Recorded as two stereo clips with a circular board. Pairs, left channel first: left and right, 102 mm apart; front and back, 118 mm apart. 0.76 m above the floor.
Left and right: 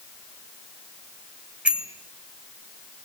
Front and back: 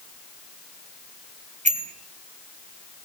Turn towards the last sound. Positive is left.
turn(degrees=-170)